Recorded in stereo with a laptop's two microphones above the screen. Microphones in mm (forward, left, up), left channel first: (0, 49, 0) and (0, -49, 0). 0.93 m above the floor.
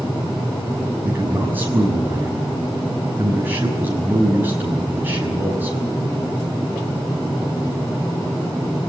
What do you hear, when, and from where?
1.0 s a man speaking: 20° right (ahead or behind), 6 m